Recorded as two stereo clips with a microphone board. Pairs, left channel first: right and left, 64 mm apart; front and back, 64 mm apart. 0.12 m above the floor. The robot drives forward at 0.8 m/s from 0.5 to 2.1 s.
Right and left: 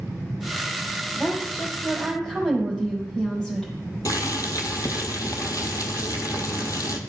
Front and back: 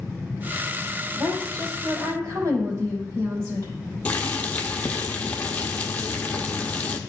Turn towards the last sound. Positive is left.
turn(degrees=-70)